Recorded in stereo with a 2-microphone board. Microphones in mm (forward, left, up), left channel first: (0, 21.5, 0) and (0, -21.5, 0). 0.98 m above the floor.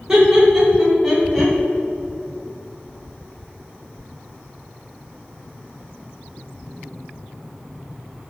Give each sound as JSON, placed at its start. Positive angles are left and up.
{"t": 0.1, "sound": "laughter", "side_deg": -20, "distance_m": 3.5}